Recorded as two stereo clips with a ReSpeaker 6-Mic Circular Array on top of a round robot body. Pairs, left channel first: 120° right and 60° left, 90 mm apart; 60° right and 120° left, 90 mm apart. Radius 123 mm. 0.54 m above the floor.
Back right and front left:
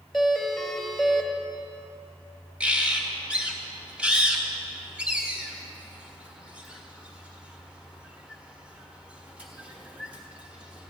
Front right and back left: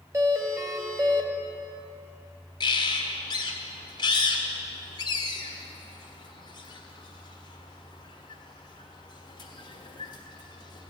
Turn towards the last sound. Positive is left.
turn(degrees=-20)